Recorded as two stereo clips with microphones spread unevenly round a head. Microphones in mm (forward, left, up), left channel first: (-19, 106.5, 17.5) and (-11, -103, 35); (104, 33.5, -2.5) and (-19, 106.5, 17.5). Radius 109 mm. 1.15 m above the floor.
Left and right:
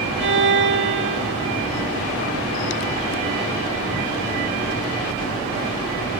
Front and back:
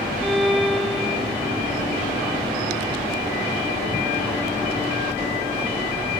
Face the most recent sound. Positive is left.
turn(degrees=-120)